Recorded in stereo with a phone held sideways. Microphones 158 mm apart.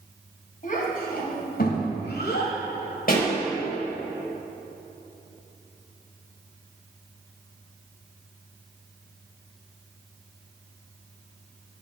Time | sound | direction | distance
0.6 | a child speaking | 55° left (ahead or behind) | 3 m
3.1 | a pop | 60° left (ahead or behind) | 3.5 m